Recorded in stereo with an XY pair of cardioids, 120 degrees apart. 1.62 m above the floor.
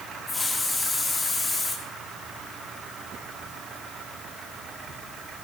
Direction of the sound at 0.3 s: 20° left.